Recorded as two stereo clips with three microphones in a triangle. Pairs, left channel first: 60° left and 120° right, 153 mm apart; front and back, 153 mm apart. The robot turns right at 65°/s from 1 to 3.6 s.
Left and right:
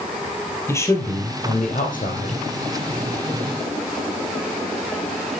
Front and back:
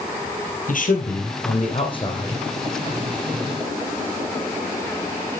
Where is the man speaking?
10° right, 3 m; by 2.4 s 80° left, 3 m.